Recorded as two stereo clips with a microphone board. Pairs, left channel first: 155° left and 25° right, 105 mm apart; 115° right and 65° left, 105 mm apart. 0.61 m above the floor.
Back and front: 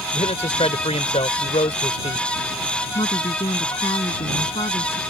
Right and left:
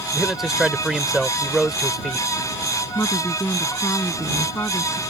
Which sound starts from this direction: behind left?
A man speaking, at 0.1 s.